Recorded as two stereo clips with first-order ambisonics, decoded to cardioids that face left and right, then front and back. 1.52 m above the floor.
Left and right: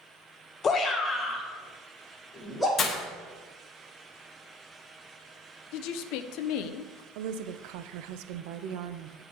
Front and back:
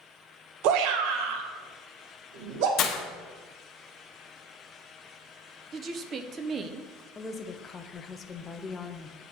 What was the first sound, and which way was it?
A shout, 155° left.